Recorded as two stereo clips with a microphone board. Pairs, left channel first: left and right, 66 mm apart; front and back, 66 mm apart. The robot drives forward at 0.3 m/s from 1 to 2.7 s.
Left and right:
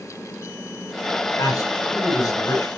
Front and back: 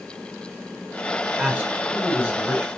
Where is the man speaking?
115° left, 8.5 m.